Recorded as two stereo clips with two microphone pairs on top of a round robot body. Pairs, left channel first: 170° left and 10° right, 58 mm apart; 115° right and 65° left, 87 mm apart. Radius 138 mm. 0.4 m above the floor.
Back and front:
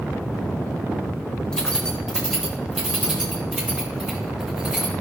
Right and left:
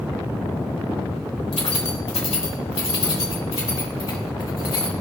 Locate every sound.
1.5 s keys jangling: 115° right, 1.2 m; by 4.9 s 90° right, 3.5 m